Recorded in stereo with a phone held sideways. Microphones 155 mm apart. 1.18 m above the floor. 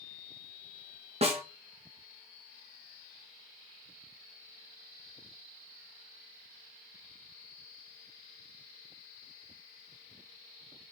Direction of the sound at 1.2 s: 45° right (ahead or behind).